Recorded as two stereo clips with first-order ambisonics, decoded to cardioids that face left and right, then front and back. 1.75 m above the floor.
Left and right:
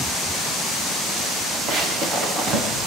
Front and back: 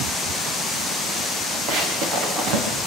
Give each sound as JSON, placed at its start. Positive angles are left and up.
{"t": 1.7, "sound": "running footsteps", "azimuth_deg": -145, "distance_m": 7.5}